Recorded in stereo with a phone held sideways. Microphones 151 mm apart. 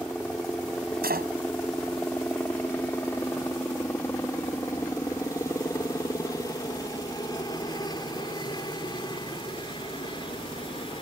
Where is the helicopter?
5° left (ahead or behind); by 11.0 s 35° left (ahead or behind).